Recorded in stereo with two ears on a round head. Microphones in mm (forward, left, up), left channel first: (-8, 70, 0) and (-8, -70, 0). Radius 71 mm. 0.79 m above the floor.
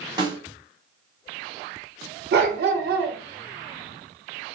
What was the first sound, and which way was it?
A snare drum, 25° right (ahead or behind).